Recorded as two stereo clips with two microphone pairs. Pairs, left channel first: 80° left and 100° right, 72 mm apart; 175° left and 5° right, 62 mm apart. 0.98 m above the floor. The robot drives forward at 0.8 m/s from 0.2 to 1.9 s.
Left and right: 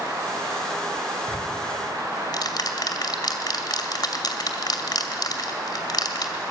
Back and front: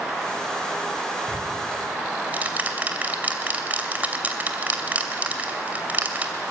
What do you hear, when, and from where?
1.3 s ticking: 50° left, 2.5 m; by 6.4 s 60° left, 2.5 m